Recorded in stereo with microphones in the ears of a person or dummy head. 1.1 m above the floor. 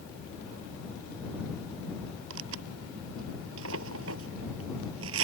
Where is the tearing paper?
75° right (ahead or behind).